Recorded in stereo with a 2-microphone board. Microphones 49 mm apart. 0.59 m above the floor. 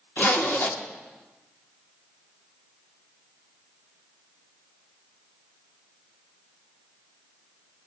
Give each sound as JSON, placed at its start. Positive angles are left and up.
{"t": 0.2, "sound": "a zipper", "side_deg": 45, "distance_m": 1.4}